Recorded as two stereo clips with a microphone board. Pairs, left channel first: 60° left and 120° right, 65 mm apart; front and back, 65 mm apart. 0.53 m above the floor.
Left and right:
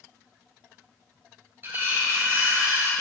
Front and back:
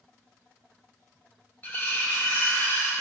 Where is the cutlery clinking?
60° right, 3.5 m.